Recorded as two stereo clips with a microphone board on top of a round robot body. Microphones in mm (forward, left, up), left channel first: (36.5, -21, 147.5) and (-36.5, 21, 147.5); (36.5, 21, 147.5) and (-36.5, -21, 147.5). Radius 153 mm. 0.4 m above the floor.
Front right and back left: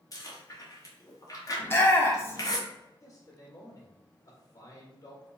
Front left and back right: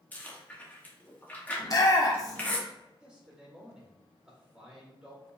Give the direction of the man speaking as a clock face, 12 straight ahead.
2 o'clock.